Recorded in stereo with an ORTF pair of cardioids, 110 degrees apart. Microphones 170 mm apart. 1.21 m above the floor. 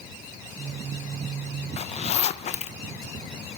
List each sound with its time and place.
1.8 s a zipper: 40° left, 0.7 m